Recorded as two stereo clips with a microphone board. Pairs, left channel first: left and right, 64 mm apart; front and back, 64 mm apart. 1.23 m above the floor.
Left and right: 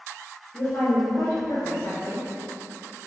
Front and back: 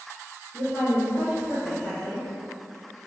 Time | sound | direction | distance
0.5 | a woman speaking | 80° left | 1.5 m